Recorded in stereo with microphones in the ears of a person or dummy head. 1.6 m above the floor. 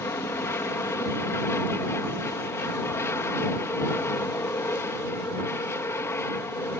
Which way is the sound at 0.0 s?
20° left (ahead or behind).